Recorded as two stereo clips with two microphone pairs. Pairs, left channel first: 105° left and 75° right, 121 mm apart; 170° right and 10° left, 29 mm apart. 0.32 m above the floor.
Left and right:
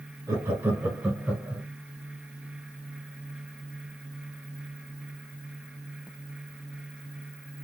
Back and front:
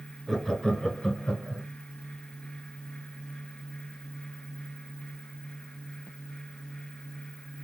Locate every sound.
0.3 s laughter: 95° right, 1.0 m; by 1.6 s 165° right, 1.5 m